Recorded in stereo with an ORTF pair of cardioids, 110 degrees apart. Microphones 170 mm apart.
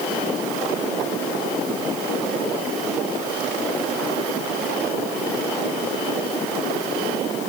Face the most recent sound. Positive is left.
No sound to turn to.